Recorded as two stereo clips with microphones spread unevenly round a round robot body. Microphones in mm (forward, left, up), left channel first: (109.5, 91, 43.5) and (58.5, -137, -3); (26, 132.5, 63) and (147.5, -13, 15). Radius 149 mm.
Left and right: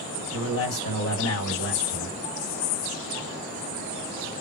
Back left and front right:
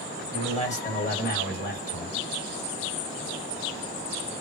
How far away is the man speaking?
About 2.0 m.